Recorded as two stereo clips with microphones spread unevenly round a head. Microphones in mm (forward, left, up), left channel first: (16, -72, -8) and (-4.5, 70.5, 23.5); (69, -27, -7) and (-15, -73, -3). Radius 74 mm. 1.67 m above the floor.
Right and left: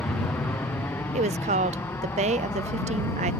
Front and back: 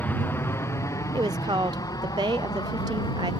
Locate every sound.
0.0 s an aircraft: 20° right; by 3.4 s 10° right
1.1 s a woman speaking: 145° left